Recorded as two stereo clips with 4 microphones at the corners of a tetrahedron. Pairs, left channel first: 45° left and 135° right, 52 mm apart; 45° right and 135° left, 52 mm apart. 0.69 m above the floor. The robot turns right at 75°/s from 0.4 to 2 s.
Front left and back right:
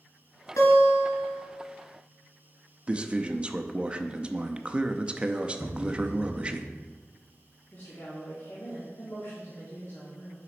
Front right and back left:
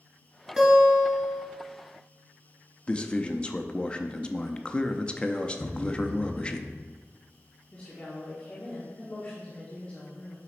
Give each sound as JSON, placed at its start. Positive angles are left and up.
{"t": 0.6, "sound": "a guitar", "azimuth_deg": 50, "distance_m": 2.5}
{"t": 2.9, "sound": "a man speaking", "azimuth_deg": -90, "distance_m": 0.5}
{"t": 5.6, "sound": "a thud", "azimuth_deg": 20, "distance_m": 0.5}
{"t": 7.7, "sound": "a woman speaking", "azimuth_deg": 15, "distance_m": 1.4}